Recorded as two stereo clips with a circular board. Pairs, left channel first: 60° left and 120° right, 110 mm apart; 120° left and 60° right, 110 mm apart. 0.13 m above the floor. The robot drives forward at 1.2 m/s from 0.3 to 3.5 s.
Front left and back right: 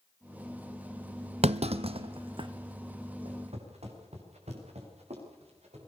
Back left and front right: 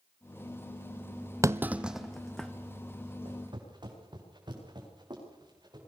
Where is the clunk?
120° right, 0.8 m; by 2.5 s 155° right, 1.8 m.